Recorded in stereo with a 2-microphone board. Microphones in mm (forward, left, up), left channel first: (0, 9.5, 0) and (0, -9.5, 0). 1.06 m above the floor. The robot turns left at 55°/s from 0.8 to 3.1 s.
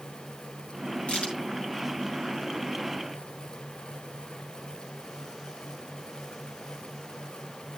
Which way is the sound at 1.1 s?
85° left.